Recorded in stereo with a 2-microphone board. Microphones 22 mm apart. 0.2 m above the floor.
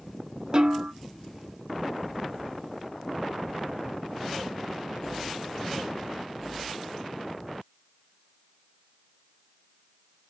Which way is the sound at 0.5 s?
45° right (ahead or behind).